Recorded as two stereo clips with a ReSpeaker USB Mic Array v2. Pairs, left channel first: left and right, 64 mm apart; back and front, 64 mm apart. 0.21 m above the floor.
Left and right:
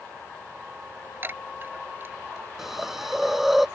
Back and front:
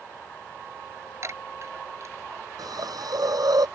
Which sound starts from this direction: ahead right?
A chime, at 1.2 s.